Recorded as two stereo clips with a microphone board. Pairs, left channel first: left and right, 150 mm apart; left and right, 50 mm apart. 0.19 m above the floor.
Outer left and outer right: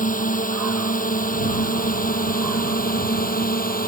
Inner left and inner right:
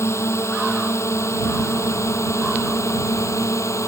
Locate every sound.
0.0 s a drone: 65° left (ahead or behind); by 3.9 s 75° left (ahead or behind)